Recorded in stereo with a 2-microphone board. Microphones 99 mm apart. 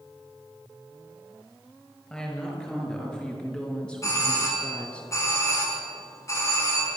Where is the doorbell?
30° left (ahead or behind), 5 m.